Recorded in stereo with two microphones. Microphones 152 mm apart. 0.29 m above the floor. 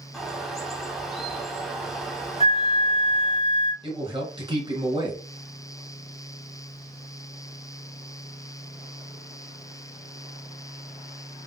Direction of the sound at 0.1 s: Centre (ahead or behind).